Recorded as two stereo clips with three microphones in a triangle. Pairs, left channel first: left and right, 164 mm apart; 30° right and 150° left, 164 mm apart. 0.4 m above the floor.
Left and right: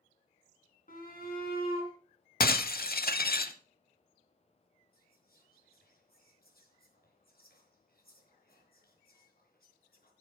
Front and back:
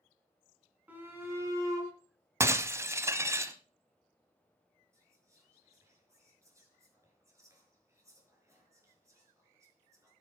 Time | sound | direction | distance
0.9 | a shout | 70° left | 4.5 m
2.4 | breaking glass | 80° left | 0.8 m
4.9 | whispering | 80° left | 5 m